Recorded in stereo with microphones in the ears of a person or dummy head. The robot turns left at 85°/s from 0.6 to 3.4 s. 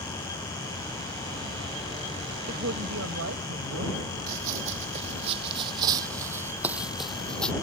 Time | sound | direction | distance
2.5 | a woman speaking | 50° right | ?
4.3 | running footsteps | 50° right (ahead or behind) | ?